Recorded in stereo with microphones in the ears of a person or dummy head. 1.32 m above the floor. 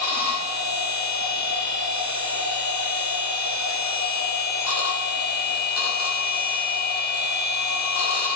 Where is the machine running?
85° left, 0.9 m.